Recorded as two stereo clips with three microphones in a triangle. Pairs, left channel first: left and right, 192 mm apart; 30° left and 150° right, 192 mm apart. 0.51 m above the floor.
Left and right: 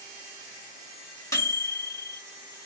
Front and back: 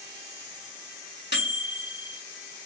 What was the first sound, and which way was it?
A microwave, 20° left.